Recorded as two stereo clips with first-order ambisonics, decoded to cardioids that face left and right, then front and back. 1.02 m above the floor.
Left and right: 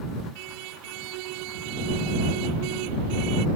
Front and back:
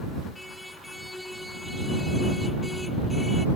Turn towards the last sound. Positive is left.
turn(degrees=-85)